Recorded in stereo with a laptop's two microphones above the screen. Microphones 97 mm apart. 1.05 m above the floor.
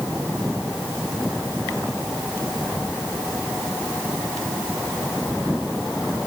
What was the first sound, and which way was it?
Only background noise.